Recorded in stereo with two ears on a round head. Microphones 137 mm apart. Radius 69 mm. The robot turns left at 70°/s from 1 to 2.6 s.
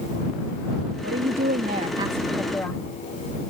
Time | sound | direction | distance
1.0 | a woman speaking | 80° right | ?